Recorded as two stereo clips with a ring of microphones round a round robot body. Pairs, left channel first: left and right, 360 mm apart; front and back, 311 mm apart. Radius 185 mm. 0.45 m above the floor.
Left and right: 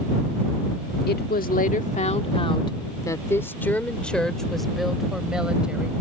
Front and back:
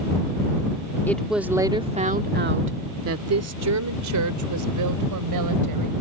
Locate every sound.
1.1 s a woman speaking: 75° left; by 5.9 s 175° right